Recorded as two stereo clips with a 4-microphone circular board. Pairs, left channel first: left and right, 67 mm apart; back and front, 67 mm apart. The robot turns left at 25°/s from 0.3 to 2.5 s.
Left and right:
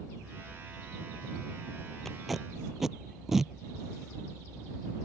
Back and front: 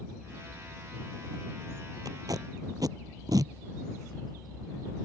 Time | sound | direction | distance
2.0 | tape being pulled | 5° left | ?